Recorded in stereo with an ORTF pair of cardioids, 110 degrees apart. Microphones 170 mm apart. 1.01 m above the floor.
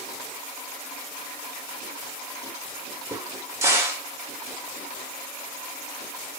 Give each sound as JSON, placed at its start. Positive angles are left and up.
{"t": 3.1, "sound": "a crack", "azimuth_deg": -15, "distance_m": 1.7}